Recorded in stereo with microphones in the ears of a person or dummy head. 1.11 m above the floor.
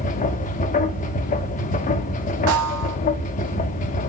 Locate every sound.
0.0 s a machine running: 40° left (ahead or behind), 0.7 m
2.5 s a snare drum: 70° right (ahead or behind), 1.1 m